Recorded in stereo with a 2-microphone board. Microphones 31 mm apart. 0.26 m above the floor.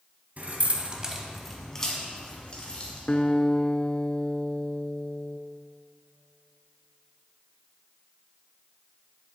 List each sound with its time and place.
0.4 s keys jangling: 55° right (ahead or behind), 1.4 m; by 3.0 s 35° left (ahead or behind), 3 m
3.1 s a guitar: 30° left (ahead or behind), 0.5 m